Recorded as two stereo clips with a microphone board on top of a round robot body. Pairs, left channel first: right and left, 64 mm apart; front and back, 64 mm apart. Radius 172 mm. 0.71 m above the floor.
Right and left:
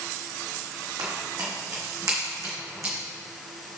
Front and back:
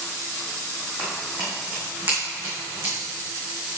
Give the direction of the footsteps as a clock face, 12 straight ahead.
9 o'clock.